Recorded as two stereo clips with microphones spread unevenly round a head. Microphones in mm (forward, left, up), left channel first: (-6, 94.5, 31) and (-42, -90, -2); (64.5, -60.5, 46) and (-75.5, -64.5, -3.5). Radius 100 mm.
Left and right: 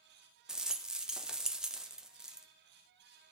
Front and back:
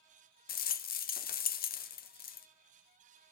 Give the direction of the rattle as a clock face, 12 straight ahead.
1 o'clock.